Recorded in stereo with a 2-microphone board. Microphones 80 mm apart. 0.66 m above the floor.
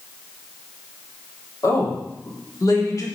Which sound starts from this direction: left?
A woman speaking, at 1.6 s.